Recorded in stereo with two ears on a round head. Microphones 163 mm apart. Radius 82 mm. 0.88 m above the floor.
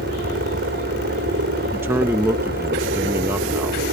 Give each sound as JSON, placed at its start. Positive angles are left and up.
{"t": 0.0, "sound": "a helicopter", "side_deg": -55}
{"t": 1.7, "sound": "a man speaking", "side_deg": -15}